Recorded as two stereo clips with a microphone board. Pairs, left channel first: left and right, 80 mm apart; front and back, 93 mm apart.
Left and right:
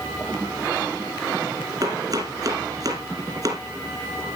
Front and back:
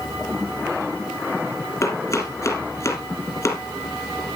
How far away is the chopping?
About 3 m.